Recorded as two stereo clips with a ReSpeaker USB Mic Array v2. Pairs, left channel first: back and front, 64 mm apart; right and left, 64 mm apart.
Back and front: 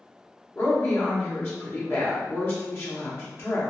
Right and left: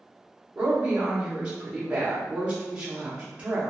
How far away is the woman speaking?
About 1.0 m.